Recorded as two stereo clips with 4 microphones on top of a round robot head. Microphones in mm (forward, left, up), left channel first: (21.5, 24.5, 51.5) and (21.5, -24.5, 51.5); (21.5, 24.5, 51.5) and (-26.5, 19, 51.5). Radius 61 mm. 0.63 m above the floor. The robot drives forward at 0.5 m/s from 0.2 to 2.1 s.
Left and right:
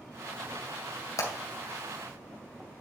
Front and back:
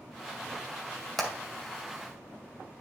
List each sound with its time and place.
1.2 s hammering: 95° left, 2 m